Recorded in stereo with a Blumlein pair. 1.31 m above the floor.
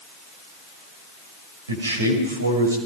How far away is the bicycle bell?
No bicycle bell in this recording.